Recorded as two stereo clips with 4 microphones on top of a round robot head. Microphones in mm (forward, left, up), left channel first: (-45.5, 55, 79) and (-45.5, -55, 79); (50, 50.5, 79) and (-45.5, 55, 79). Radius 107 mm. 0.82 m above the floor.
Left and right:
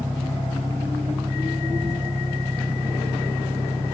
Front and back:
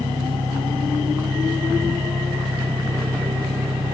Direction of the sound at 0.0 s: 160° right.